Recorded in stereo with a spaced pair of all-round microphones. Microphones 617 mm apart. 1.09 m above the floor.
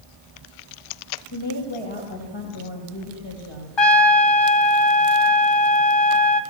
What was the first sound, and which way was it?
A woman speaking, 45° left (ahead or behind).